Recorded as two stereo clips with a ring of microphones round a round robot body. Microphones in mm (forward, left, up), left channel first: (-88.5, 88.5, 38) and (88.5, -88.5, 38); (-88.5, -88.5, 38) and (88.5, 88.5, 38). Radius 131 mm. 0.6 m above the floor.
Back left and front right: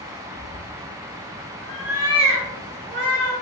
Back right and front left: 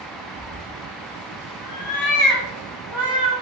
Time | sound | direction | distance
0.3 | a cat meowing | 155° left | 0.9 m